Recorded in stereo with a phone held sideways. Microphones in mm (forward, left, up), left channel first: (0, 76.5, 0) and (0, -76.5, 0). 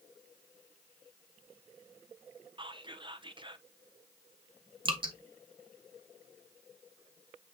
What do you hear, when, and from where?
2.6 s whispering: 35° right (ahead or behind), 0.8 m
4.8 s dripping: 30° right (ahead or behind), 1.7 m